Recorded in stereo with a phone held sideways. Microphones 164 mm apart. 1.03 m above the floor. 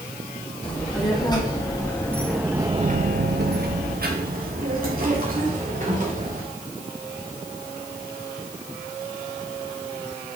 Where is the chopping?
No chopping in this recording.